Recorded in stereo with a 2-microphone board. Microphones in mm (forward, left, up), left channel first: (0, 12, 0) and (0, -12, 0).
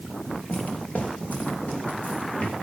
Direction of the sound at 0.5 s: 85° left.